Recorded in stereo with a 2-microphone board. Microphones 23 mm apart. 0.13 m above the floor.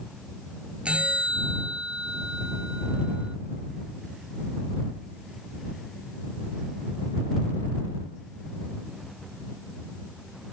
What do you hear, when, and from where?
0.8 s a bell: 55° right (ahead or behind)